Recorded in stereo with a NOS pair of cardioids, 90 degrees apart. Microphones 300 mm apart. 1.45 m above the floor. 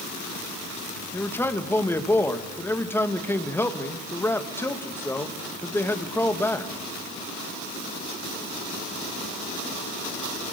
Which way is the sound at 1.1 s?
5° left.